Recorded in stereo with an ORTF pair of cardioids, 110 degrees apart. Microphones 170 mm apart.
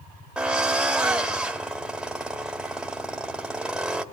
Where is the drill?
5° right, 2.5 m.